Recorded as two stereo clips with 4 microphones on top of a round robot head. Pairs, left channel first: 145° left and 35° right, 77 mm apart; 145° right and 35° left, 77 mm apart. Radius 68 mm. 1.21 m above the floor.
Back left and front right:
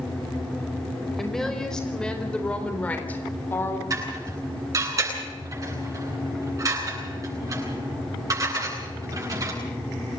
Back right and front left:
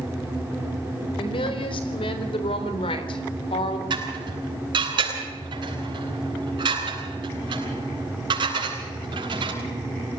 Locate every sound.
1.2 s a woman speaking: 130° right, 4.5 m; by 3.8 s 155° right, 3 m
3.9 s dishes clattering: 10° left, 9.5 m